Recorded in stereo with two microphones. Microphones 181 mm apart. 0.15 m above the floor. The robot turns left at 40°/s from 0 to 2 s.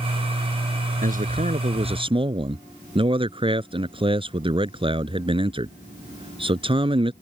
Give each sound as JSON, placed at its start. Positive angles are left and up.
{"t": 1.0, "sound": "a man speaking", "azimuth_deg": -100}